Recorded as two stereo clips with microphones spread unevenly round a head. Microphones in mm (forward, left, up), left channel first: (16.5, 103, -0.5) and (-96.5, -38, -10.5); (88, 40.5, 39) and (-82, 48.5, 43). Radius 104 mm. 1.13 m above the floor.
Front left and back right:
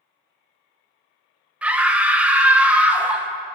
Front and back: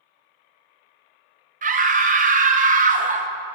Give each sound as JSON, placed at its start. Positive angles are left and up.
{"t": 1.6, "sound": "a scream", "azimuth_deg": 150, "distance_m": 1.0}